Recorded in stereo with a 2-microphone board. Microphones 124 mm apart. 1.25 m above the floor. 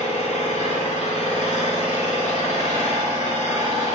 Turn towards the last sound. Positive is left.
turn(degrees=65)  # may be behind; listen again after turning